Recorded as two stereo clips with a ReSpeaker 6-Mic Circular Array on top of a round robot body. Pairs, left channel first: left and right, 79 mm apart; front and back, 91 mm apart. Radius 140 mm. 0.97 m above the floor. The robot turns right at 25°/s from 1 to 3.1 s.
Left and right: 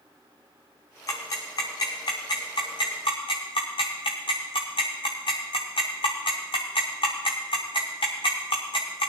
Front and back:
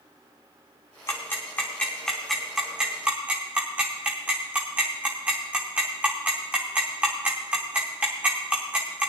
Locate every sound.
1.1 s ticking: 55° left, 0.6 m; by 9.1 s 105° left, 0.6 m